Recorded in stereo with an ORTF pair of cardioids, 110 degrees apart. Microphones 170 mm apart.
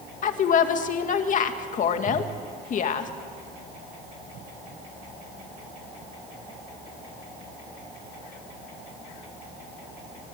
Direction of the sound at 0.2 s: 50° left.